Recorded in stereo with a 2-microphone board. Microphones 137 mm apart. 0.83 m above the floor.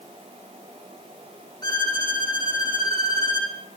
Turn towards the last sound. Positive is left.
turn(degrees=30)  # may be behind; listen again after turning